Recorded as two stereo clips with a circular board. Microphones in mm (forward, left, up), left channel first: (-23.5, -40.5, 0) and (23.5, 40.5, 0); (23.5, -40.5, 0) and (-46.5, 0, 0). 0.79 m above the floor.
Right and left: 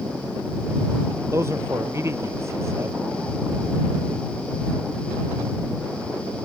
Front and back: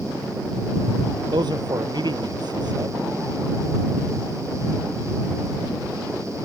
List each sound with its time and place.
1.3 s a man speaking: 120° left